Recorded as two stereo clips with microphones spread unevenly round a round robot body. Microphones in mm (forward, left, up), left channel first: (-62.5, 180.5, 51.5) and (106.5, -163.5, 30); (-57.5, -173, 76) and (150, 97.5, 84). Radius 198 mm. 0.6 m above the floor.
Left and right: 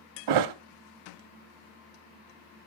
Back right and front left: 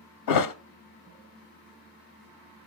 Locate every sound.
0.3 s a thud: 100° right, 0.7 m